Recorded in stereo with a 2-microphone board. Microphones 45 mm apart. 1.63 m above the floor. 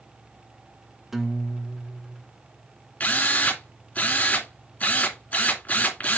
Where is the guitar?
5° right (ahead or behind), 0.7 m.